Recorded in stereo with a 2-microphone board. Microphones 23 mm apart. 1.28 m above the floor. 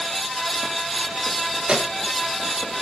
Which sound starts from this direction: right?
A microwave, at 1.7 s.